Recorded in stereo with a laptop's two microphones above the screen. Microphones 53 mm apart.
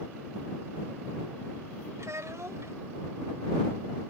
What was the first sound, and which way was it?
A child speaking, 65° right (ahead or behind).